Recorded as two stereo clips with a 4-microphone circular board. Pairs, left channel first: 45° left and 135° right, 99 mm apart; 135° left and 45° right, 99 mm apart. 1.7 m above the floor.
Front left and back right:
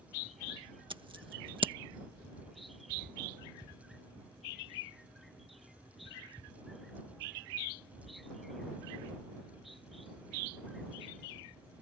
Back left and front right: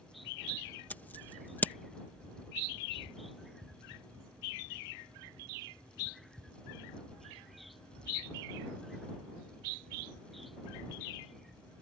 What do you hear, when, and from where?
0.9 s scissors: 155° right